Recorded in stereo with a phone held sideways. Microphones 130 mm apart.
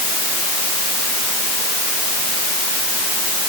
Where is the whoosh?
I don't hear a whoosh.